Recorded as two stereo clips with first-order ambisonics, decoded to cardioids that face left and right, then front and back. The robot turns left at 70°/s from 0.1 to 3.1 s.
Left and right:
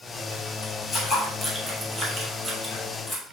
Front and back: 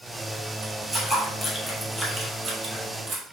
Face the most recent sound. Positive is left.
turn(degrees=155)